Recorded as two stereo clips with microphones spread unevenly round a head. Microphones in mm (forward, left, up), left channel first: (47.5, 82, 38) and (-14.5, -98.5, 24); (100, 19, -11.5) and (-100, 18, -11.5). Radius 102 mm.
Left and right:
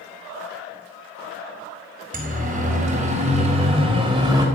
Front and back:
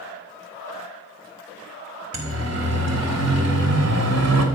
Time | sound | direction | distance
2.1 | a siren | 160° right | 4 m